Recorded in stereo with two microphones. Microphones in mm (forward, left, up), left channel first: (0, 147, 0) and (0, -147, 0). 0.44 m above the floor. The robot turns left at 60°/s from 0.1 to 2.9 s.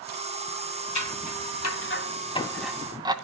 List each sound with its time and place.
0.9 s scissors: 75° left (ahead or behind), 1.4 m; by 3.1 s 15° right (ahead or behind), 1.4 m